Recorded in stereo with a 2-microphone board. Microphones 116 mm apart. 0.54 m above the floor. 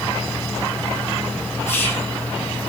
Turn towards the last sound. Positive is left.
turn(degrees=20)  # may be behind; listen again after turning